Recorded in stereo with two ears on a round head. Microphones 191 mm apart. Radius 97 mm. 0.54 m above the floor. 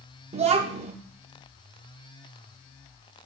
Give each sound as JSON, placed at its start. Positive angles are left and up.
{"t": 0.3, "sound": "a child speaking", "side_deg": -30, "distance_m": 0.6}